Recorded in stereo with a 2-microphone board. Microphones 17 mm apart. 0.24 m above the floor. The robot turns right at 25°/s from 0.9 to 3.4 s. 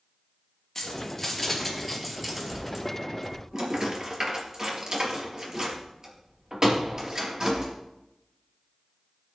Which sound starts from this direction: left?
Keys jangling, at 0.8 s.